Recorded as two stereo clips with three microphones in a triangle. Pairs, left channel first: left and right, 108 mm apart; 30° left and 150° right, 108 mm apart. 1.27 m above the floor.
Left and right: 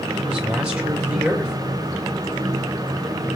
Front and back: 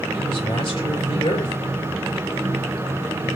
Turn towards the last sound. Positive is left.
turn(degrees=-10)